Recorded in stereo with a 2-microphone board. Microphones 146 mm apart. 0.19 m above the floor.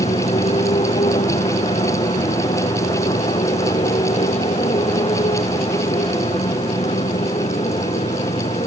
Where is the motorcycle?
50° left (ahead or behind); by 8.7 s 45° left (ahead or behind).